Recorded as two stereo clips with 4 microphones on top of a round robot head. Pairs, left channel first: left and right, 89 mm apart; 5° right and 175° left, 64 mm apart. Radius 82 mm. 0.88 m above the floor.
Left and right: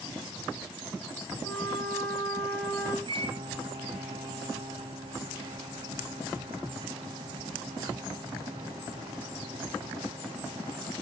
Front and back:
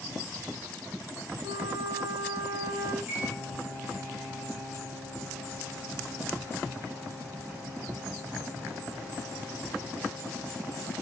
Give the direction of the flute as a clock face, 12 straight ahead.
7 o'clock.